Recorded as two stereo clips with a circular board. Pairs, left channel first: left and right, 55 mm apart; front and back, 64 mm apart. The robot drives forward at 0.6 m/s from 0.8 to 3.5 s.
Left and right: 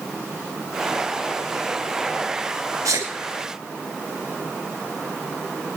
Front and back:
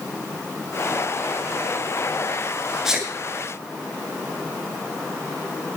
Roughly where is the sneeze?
Right.